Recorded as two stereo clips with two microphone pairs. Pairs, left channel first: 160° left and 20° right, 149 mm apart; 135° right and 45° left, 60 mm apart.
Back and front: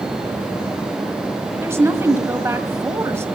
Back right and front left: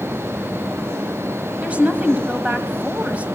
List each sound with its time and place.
1.6 s a woman speaking: 25° left, 1.2 m